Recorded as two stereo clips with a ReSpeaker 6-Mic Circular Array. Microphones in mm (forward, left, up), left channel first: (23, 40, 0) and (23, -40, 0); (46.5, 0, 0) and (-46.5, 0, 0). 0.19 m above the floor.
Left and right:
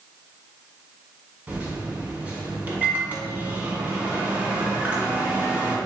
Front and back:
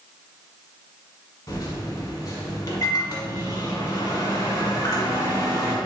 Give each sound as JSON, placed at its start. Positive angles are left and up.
{"t": 1.5, "sound": "a microwave", "azimuth_deg": -30, "distance_m": 1.0}